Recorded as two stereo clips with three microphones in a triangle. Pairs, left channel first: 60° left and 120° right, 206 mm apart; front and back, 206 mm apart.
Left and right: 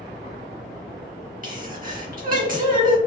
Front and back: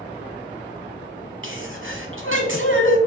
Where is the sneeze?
165° right, 1.0 m.